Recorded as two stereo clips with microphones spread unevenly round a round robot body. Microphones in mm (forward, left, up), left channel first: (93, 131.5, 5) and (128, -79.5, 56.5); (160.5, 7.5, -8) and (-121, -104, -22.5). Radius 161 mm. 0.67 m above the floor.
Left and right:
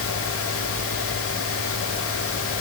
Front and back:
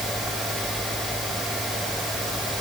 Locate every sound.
Only background noise.